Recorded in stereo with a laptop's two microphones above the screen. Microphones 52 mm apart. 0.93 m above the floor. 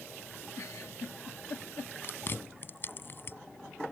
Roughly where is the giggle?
Left.